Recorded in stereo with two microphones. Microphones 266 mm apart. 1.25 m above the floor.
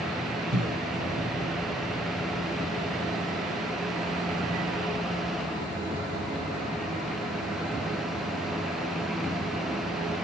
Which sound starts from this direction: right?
A cough, at 0.5 s.